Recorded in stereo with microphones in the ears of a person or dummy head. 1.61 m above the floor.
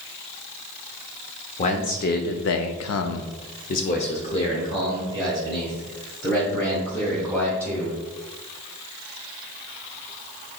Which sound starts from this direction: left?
A man speaking, at 1.6 s.